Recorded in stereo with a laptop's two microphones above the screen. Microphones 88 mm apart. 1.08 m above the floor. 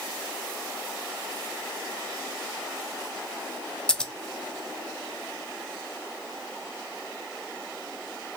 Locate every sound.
3.9 s scissors: 10° left (ahead or behind), 0.5 m